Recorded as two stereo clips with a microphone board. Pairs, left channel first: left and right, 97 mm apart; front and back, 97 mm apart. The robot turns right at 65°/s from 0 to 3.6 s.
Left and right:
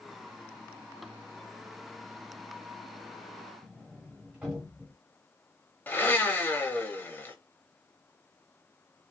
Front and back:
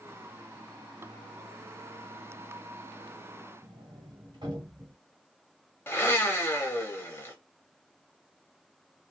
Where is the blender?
40° left, 0.7 m.